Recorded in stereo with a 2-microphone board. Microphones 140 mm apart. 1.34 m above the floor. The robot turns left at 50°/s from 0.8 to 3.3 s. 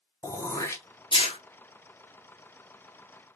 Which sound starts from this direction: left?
Throat clearing, at 0.2 s.